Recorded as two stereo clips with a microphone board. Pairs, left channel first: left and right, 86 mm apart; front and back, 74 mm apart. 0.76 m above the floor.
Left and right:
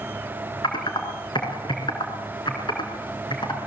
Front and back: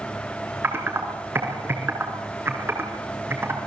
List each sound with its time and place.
0.6 s typing on a keyboard: 120° left, 4 m